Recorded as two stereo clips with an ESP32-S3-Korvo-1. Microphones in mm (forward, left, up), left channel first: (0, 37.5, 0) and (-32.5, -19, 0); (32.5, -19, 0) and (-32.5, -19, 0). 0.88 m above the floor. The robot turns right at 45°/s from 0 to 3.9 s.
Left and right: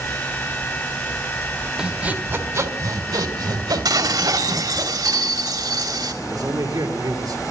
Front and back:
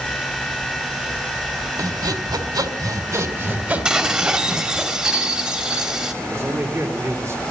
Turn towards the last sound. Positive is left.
turn(degrees=-135)